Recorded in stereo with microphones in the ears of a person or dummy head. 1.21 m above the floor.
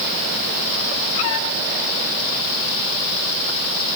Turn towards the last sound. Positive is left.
No sound to turn to.